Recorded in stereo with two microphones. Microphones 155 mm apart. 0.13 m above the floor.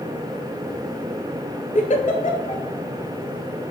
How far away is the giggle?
About 0.6 m.